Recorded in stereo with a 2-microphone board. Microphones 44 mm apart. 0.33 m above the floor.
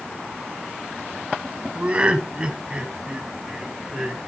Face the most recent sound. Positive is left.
turn(degrees=-10)  # may be behind; listen again after turning